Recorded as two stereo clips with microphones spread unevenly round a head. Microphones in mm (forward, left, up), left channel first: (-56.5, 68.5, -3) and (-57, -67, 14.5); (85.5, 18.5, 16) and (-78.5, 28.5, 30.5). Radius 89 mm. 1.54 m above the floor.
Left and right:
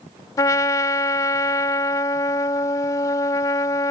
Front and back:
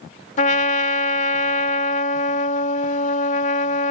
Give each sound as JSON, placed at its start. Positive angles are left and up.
{"t": 0.4, "sound": "a trumpet", "azimuth_deg": 20}